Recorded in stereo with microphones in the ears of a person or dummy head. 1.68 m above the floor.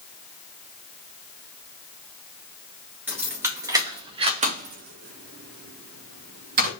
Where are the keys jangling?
10° right (ahead or behind), 2 m; by 6.7 s 50° right (ahead or behind), 2 m.